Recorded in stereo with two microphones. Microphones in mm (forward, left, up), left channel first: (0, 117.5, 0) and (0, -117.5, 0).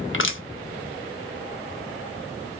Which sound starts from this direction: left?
Crushing, at 0.1 s.